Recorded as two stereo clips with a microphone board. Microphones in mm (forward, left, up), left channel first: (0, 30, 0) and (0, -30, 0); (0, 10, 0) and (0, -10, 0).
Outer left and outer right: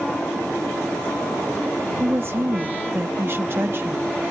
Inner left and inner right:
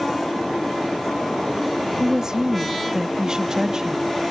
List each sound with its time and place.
2.0 s a woman speaking: 45° right (ahead or behind)